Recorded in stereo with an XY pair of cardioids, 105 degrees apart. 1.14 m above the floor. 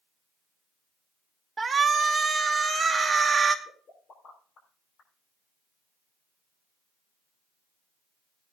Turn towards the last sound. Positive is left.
turn(degrees=55)